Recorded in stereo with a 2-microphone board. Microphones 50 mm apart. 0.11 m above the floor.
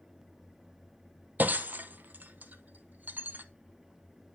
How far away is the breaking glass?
About 1.3 m.